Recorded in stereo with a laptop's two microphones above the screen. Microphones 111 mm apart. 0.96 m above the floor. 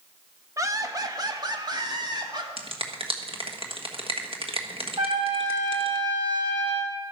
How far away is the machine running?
I don't hear a machine running.